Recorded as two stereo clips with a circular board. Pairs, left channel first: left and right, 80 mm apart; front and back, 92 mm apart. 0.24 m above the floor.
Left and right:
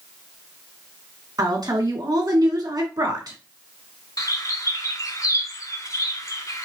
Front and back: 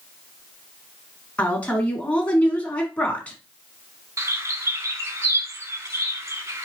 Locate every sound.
1.4 s a woman speaking: 70° right, 1.8 m
4.2 s a bird: 125° left, 0.8 m